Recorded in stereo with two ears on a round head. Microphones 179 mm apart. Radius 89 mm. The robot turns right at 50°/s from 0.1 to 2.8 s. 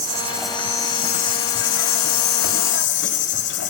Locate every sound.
0.0 s an insect: 20° right, 1.2 m; by 3.7 s 115° left, 1.2 m